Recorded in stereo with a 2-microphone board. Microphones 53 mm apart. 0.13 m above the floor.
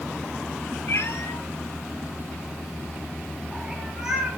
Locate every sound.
0.9 s a cat meowing: 65° left (ahead or behind), 1.6 m; by 4.4 s 20° right (ahead or behind), 2 m